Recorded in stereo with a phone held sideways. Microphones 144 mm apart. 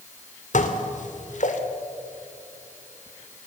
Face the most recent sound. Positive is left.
turn(degrees=60)  # may be behind; listen again after turning